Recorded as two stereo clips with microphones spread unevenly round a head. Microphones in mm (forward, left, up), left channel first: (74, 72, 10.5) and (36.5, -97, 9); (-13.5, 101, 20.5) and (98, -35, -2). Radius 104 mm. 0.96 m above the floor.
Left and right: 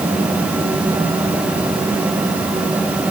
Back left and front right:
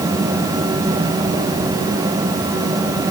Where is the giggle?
I don't hear a giggle.